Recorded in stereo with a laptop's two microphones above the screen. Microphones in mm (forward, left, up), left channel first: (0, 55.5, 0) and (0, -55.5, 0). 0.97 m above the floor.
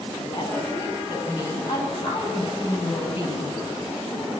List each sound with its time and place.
0.2 s a woman speaking: 35° left (ahead or behind), 7.5 m; by 3.5 s 55° left (ahead or behind), 6 m